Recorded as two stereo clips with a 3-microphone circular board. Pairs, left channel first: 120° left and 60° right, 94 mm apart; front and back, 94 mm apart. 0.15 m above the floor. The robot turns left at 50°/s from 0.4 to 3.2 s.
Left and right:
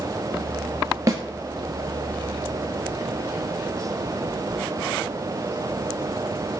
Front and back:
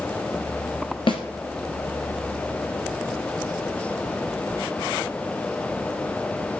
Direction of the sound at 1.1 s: 10° right.